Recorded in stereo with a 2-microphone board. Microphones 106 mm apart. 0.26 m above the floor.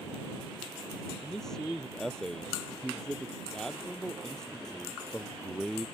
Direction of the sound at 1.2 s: 5° left (ahead or behind).